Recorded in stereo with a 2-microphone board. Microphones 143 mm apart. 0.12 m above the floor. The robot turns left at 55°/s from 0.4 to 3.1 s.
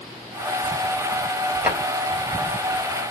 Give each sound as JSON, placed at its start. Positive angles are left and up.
{"t": 1.6, "sound": "a drawer", "side_deg": -10, "distance_m": 1.7}